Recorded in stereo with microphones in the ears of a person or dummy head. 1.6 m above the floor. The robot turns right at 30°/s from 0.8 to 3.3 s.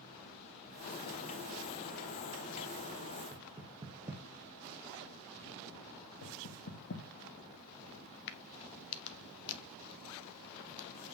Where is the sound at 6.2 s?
60° left (ahead or behind), 1.4 m.